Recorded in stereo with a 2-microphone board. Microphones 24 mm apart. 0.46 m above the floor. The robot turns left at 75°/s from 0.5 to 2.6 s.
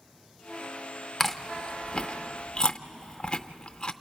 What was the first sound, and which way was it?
Chewing, 10° left (ahead or behind).